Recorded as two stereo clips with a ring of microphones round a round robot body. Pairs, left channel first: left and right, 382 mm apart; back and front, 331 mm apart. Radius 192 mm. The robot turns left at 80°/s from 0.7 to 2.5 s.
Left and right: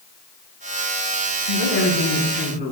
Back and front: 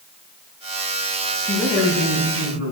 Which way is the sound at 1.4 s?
100° left.